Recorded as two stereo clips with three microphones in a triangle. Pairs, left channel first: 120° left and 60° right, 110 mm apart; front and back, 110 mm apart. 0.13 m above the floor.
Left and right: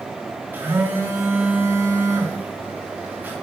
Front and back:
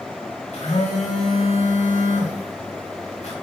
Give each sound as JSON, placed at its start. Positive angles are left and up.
{"t": 0.5, "sound": "a phone buzzing", "azimuth_deg": 10, "distance_m": 3.5}